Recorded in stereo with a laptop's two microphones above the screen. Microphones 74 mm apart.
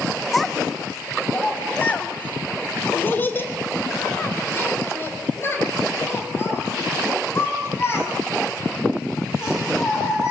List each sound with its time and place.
0.3 s a child speaking: centre (ahead or behind), 0.7 m; by 10.3 s 35° left (ahead or behind), 7 m